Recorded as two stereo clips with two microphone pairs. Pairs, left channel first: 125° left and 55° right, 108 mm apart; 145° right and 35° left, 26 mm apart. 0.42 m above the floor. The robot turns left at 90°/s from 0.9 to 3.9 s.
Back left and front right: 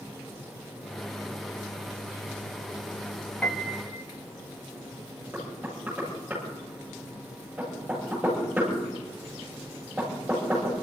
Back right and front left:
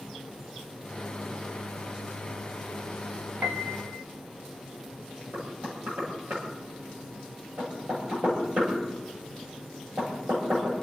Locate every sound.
3.4 s a piano: 45° left, 0.8 m; by 4.0 s straight ahead, 0.8 m
5.3 s knocking: 25° left, 9 m